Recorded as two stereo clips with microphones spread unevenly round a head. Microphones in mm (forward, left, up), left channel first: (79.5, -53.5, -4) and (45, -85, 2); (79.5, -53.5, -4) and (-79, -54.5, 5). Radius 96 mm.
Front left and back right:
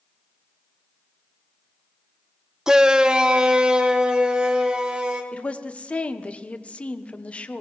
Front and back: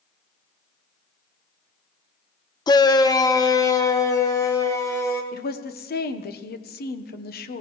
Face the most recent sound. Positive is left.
turn(degrees=-20)